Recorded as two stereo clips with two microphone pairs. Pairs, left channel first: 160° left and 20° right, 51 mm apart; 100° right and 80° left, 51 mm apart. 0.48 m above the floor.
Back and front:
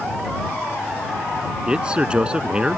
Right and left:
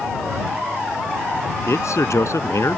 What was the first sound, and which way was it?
A man speaking, 90° right.